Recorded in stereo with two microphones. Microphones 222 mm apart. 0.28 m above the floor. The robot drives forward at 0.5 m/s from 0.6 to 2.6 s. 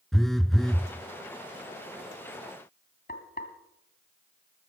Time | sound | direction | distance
0.1 | a phone buzzing | centre (ahead or behind) | 0.8 m
3.1 | frying | 40° left (ahead or behind) | 2 m